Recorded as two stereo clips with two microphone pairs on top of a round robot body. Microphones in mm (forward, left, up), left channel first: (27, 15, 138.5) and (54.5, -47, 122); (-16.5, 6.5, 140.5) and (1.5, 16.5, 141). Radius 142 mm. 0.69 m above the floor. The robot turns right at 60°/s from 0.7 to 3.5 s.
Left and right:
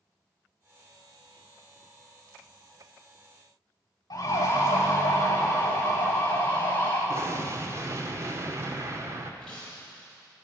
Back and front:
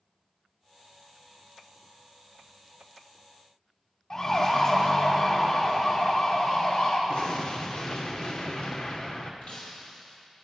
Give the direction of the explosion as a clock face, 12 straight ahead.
4 o'clock.